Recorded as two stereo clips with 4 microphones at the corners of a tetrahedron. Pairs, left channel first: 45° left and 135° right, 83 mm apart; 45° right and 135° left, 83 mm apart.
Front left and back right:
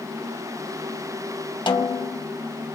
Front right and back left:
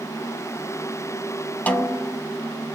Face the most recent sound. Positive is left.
turn(degrees=25)